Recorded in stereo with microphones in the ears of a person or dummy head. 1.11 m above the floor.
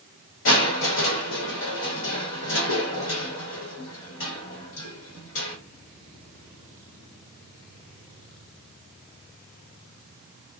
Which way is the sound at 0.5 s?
65° left (ahead or behind).